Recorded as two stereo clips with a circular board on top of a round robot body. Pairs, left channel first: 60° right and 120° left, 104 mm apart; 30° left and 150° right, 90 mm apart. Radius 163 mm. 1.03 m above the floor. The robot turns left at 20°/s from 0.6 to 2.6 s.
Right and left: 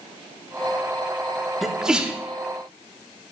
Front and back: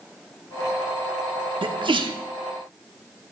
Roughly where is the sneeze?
Behind right.